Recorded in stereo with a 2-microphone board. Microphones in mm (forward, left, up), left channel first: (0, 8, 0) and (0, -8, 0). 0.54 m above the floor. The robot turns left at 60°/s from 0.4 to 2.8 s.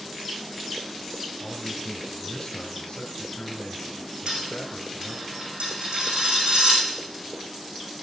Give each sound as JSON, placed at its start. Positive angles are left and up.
{"t": 1.4, "sound": "a man speaking", "azimuth_deg": -165, "distance_m": 2.5}
{"t": 4.3, "sound": "a dropped coin", "side_deg": -75, "distance_m": 7.0}